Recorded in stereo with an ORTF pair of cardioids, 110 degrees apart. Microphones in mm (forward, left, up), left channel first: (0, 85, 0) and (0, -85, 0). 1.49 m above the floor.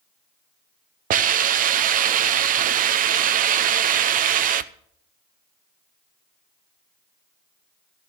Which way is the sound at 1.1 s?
55° right.